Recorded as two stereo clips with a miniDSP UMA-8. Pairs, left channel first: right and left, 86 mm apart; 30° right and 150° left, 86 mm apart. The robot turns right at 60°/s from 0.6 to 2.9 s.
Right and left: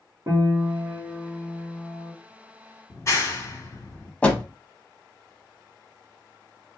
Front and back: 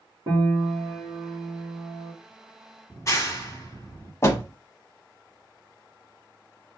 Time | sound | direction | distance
0.3 | a piano | 130° left | 1.8 m
2.9 | a clap | 60° right | 1.4 m
4.2 | a door slam | 25° right | 0.8 m